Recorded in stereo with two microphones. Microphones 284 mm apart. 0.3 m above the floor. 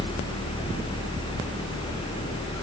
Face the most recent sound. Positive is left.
No sound to turn to.